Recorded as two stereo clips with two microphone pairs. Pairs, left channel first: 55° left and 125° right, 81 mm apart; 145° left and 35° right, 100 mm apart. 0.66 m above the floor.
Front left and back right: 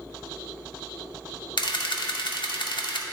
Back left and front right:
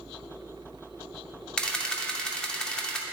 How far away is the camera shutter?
About 0.7 m.